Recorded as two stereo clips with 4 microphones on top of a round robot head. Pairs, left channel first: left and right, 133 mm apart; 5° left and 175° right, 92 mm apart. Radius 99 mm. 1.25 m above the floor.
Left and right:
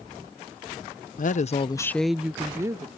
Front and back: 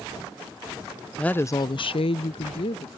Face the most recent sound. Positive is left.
turn(degrees=-25)